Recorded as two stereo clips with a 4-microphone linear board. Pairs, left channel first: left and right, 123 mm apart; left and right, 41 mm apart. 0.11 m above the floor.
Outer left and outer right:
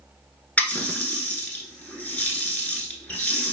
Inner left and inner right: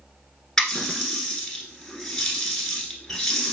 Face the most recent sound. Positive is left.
turn(degrees=10)  # may be behind; listen again after turning